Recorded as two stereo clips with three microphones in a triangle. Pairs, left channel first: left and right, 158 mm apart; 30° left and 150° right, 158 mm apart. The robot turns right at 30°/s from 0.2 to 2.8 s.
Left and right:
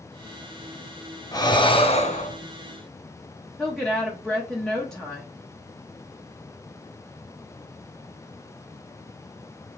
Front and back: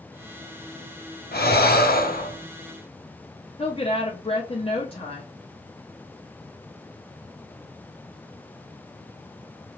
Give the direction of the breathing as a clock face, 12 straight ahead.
11 o'clock.